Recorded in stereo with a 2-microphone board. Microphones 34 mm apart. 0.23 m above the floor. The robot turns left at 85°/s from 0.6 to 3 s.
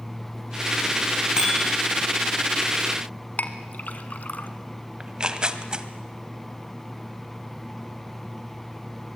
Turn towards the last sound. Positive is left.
turn(degrees=-30)  # may be behind; listen again after turning